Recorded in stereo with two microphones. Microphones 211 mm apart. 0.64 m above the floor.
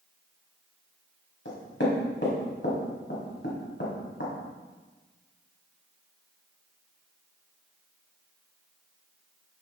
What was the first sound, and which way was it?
Knocking, 65° left (ahead or behind).